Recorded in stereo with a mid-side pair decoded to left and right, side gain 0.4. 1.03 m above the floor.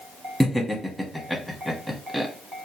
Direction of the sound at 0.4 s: Straight ahead.